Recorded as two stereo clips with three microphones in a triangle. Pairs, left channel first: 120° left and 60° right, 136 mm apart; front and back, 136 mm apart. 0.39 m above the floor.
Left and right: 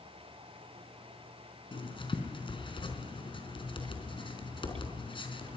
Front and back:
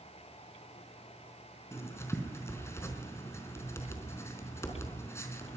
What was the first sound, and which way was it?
Writing, 70° left.